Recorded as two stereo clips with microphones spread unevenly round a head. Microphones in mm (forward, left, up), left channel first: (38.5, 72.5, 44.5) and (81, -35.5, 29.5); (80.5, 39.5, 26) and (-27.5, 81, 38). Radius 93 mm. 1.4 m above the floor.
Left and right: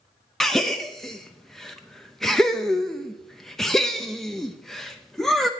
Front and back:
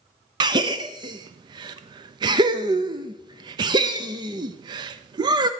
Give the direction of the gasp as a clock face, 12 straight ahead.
5 o'clock.